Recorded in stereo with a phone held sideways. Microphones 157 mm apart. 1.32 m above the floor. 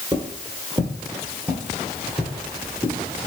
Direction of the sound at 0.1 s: 25° right (ahead or behind).